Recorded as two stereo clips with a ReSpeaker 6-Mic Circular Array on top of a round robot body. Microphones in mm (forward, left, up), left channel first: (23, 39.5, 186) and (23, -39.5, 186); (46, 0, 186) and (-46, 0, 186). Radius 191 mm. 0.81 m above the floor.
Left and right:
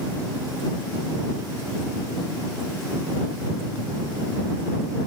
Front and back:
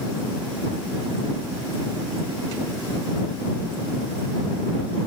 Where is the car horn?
I don't hear a car horn.